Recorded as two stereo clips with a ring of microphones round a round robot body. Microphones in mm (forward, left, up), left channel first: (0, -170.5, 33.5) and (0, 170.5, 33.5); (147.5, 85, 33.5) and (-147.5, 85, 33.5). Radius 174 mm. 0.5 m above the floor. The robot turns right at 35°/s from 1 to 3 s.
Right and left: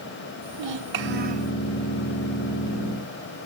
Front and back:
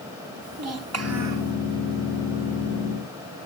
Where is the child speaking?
145° left, 1.8 m; by 1.5 s 165° left, 1.8 m.